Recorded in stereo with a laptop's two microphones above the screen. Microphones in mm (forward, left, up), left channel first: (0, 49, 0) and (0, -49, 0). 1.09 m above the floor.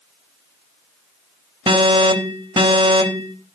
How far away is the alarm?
About 3.5 m.